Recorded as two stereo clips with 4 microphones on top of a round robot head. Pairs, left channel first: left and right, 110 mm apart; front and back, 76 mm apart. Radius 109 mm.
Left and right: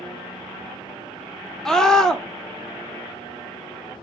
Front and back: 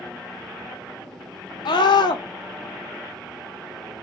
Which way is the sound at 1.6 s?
5° left.